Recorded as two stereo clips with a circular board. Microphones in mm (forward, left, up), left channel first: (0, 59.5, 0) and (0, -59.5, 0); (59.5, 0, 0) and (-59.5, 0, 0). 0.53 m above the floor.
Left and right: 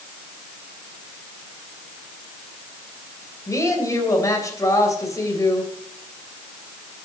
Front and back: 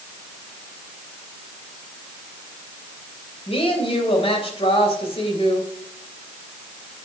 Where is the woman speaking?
30° left, 3 m.